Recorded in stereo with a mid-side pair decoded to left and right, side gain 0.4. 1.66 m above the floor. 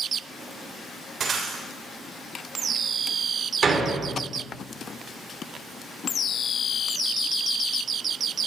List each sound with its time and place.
1.2 s breaking glass: 55° right, 3.5 m
3.6 s a door slam: 40° right, 3.5 m